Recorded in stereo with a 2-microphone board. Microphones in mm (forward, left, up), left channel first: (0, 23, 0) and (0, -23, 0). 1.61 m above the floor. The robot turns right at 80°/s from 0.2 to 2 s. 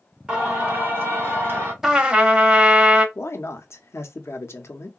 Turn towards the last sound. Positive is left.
turn(degrees=75)  # may be behind; listen again after turning